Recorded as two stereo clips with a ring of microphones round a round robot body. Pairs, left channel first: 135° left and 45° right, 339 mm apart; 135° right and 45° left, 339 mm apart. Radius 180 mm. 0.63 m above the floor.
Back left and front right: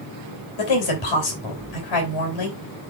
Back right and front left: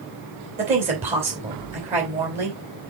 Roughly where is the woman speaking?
Behind left.